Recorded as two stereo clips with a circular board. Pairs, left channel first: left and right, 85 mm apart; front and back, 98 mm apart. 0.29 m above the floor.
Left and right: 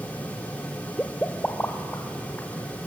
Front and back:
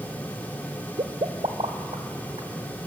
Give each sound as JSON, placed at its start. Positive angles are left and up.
{"t": 1.0, "sound": "a pop", "azimuth_deg": 165, "distance_m": 1.0}